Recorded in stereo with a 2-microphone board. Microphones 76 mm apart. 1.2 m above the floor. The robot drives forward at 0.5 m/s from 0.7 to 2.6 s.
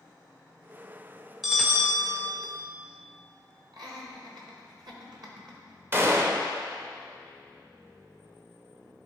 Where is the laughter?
65° right (ahead or behind), 1.5 m.